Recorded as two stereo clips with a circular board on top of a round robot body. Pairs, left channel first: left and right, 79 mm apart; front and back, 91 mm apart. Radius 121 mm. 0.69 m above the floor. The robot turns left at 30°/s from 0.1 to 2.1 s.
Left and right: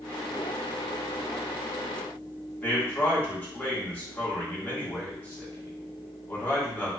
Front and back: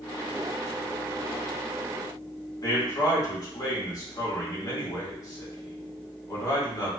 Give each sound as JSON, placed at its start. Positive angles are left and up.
{"t": 2.6, "sound": "a man speaking", "azimuth_deg": 25, "distance_m": 1.5}